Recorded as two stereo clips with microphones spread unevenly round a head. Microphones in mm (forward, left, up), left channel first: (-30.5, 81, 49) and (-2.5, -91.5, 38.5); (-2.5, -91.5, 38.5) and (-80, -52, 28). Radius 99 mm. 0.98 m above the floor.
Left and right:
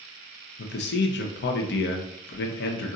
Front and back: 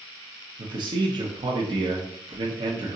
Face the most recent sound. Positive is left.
turn(degrees=115)